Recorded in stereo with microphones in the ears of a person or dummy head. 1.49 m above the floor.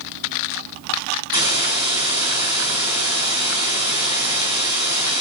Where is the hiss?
30° right (ahead or behind), 7 m.